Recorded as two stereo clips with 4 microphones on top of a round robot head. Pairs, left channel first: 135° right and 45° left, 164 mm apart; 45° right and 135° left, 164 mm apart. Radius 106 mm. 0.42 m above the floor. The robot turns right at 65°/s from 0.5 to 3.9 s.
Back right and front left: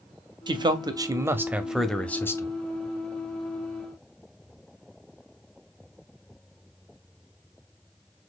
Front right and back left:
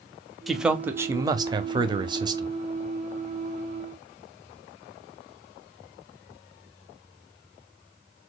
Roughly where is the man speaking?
Ahead left.